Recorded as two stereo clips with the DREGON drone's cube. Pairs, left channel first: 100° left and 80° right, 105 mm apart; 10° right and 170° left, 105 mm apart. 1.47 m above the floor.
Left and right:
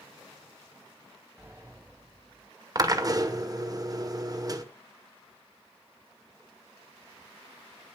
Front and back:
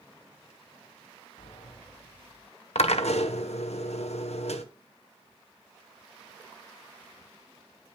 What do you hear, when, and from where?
1.4 s a sliding door: 15° right, 4 m
2.8 s a drill: 25° right, 1.2 m